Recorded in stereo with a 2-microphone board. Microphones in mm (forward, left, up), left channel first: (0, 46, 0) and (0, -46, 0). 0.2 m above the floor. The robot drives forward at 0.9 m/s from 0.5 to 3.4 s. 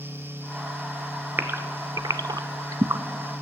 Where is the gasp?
25° right (ahead or behind), 1.1 m; by 3.0 s 35° right (ahead or behind), 0.8 m.